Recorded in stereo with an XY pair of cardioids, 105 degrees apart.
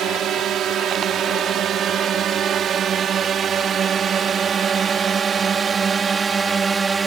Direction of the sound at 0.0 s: 70° right.